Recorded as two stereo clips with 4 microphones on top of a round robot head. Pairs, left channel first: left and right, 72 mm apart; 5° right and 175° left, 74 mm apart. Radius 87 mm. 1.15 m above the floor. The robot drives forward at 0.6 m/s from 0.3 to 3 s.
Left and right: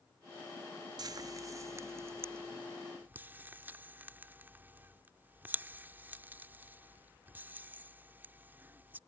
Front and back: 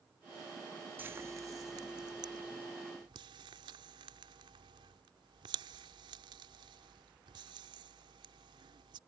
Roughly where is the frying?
Behind right.